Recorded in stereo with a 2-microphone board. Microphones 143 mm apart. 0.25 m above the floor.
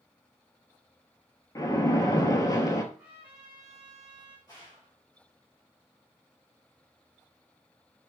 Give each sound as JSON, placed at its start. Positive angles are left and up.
{"t": 1.6, "sound": "a splash", "side_deg": 25, "distance_m": 0.8}
{"t": 2.9, "sound": "a trumpet", "side_deg": -15, "distance_m": 1.9}
{"t": 4.5, "sound": "a gunshot", "side_deg": 25, "distance_m": 2.5}